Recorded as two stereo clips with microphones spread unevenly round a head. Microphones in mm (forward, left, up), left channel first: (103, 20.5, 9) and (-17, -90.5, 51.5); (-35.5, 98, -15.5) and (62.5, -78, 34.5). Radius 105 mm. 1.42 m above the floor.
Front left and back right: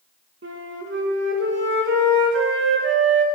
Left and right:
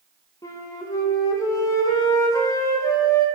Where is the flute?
165° right, 1.2 m.